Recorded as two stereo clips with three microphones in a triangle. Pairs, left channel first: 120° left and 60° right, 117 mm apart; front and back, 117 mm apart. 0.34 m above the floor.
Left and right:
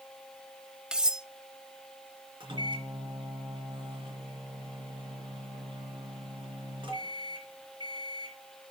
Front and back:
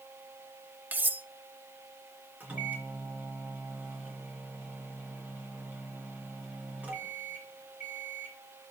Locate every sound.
0.9 s cutlery clinking: 135° right, 0.5 m
2.4 s a microwave: 105° right, 3.5 m